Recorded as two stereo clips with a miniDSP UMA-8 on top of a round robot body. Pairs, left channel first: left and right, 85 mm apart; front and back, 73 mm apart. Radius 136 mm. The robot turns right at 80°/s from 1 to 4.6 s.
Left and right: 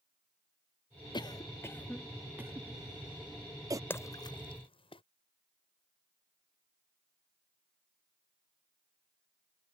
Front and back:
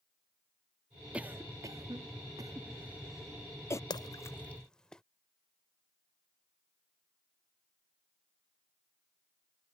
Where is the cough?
105° left; by 3.8 s 40° right.